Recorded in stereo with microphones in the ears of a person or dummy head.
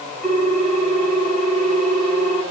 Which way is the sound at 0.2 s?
10° right (ahead or behind).